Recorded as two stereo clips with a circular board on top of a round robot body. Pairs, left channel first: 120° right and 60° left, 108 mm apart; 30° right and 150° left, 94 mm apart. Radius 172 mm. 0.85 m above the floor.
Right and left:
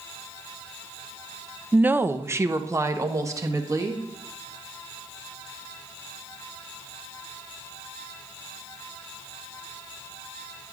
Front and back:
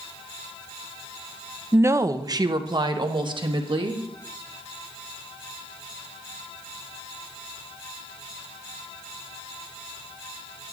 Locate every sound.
1.7 s a woman speaking: 120° left, 0.6 m